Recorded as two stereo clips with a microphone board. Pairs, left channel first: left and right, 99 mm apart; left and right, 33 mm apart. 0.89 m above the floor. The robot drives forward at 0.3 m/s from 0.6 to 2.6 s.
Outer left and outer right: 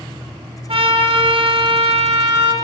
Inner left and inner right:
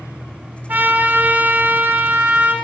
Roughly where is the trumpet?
Right.